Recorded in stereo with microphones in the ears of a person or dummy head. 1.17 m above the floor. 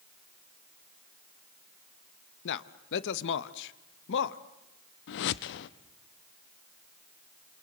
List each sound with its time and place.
2.5 s a man speaking: 60° left (ahead or behind), 0.9 m
5.1 s a whoosh: 65° left (ahead or behind), 0.9 m